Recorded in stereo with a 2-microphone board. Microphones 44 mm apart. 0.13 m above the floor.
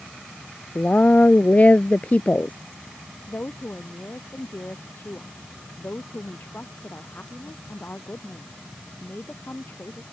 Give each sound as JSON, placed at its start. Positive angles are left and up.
{"t": 0.8, "sound": "a woman speaking", "side_deg": 35}
{"t": 3.3, "sound": "a woman speaking", "side_deg": 50}